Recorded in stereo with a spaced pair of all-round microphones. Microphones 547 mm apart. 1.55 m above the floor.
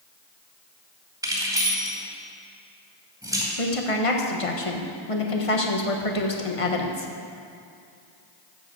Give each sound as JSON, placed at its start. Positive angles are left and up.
{"t": 1.2, "sound": "keys jangling", "side_deg": -5, "distance_m": 2.5}
{"t": 3.6, "sound": "a woman speaking", "side_deg": 70, "distance_m": 1.3}